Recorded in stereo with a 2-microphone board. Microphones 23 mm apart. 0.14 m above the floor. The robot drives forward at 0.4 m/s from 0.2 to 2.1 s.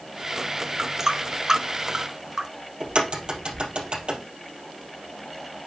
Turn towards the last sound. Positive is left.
turn(degrees=-50)  # may be behind; listen again after turning